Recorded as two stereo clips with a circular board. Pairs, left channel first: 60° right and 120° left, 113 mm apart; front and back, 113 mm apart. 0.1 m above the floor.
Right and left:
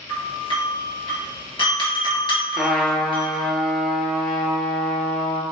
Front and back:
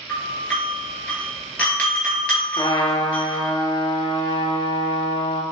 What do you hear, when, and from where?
0.1 s a doorbell: 75° right, 2.0 m
2.6 s a trumpet: 30° left, 0.7 m